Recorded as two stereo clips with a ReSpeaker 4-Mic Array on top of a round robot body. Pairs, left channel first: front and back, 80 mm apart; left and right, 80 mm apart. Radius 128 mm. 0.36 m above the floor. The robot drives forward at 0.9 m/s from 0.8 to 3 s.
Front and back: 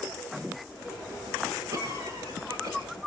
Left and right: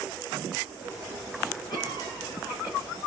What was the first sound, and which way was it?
A cough, 125° left.